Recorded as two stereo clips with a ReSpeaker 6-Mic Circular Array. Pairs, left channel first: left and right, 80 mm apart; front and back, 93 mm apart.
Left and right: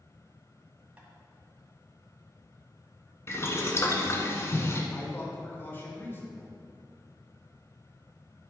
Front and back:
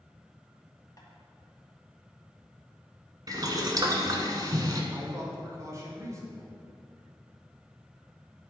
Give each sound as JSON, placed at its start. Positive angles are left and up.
{"t": 1.0, "sound": "tapping", "azimuth_deg": -25, "distance_m": 2.0}
{"t": 3.3, "sound": "boiling", "azimuth_deg": 140, "distance_m": 1.3}
{"t": 4.9, "sound": "a man speaking", "azimuth_deg": 140, "distance_m": 2.0}